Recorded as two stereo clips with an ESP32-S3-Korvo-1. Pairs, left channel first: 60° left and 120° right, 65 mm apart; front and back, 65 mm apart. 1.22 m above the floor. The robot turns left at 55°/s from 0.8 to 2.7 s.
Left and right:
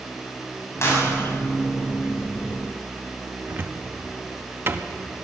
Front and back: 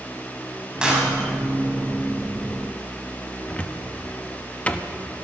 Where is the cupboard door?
70° right, 1.1 m.